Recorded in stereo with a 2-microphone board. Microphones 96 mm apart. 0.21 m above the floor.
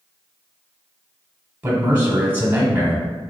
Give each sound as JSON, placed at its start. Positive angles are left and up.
{"t": 1.6, "sound": "a man speaking", "side_deg": -20, "distance_m": 1.1}